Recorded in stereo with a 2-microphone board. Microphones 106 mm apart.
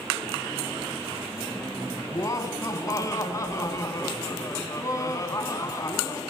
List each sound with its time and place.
2.1 s laughter: 30° left (ahead or behind), 1.1 m